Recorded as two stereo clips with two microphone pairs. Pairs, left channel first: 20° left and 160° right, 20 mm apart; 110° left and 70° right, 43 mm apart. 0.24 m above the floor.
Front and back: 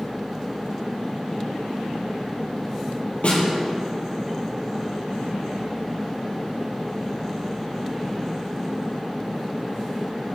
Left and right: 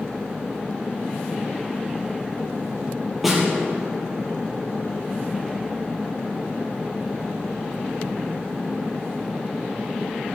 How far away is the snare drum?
About 3.5 m.